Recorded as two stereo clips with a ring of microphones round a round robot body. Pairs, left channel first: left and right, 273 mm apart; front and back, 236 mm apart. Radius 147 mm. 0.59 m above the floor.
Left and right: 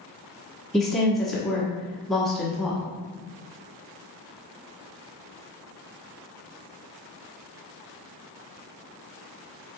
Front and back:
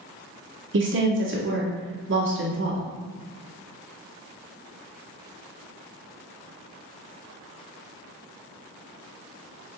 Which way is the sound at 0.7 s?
Straight behind.